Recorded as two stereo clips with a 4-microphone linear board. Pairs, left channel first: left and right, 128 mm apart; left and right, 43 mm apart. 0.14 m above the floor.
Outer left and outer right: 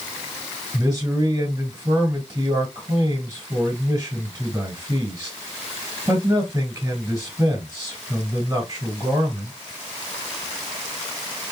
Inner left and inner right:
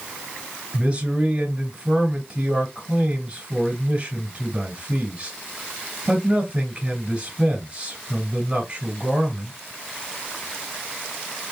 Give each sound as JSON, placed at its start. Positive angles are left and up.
{"t": 0.7, "sound": "a man speaking", "side_deg": -30, "distance_m": 2.5}